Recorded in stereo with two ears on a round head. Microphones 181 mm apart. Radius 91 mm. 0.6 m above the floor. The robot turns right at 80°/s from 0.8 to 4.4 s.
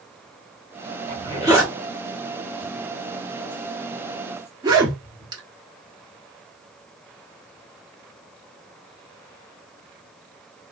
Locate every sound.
1.1 s a zipper: 30° right (ahead or behind), 1.1 m; by 5.4 s 20° right (ahead or behind), 1.1 m